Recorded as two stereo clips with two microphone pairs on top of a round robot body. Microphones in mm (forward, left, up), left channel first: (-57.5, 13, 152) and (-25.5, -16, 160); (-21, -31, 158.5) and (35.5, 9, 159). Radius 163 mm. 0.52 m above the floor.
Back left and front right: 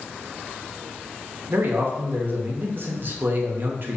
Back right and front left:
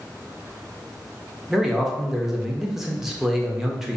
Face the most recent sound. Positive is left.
turn(degrees=-50)